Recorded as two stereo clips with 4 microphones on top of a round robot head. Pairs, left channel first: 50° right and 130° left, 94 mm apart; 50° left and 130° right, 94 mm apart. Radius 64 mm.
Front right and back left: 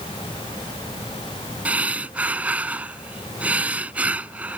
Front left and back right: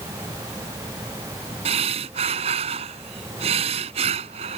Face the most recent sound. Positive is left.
turn(degrees=-155)